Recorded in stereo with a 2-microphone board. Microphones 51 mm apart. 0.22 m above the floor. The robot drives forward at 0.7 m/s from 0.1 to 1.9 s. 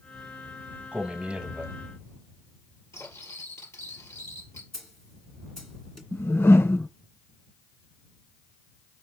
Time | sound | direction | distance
0.9 | a man speaking | 25° right (ahead or behind) | 1.2 m
2.9 | cutlery clinking | 70° left (ahead or behind) | 3 m
4.7 | a snare drum | 5° left (ahead or behind) | 2 m
6.1 | a whoosh | 55° left (ahead or behind) | 0.6 m